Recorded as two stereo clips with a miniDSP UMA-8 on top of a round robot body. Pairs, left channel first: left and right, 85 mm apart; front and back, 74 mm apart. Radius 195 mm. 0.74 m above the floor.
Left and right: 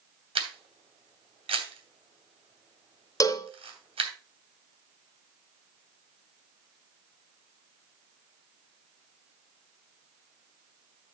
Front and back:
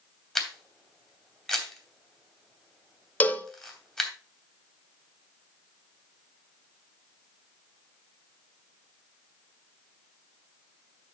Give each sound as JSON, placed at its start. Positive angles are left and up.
{"t": 0.3, "sound": "a camera shutter", "azimuth_deg": -85, "distance_m": 2.5}
{"t": 3.2, "sound": "a cowbell", "azimuth_deg": 60, "distance_m": 1.4}